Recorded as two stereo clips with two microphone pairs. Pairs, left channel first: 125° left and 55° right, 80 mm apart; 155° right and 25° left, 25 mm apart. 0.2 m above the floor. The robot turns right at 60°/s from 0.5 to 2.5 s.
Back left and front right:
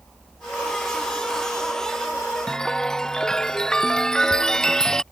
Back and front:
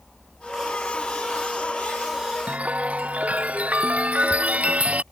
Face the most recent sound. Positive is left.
turn(degrees=45)